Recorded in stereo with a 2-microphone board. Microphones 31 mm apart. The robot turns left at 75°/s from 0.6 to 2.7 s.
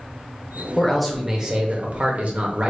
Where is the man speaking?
15° left, 0.9 m; by 2.7 s 130° right, 0.9 m.